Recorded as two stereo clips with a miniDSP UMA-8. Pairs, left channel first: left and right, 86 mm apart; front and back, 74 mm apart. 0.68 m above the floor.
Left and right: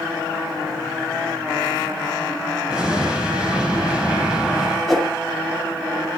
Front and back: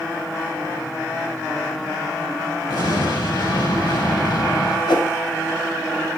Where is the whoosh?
Straight ahead, 2 m.